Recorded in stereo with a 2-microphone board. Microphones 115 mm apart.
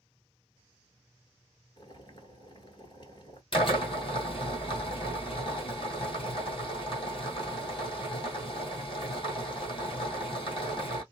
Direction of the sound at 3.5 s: 45° left (ahead or behind).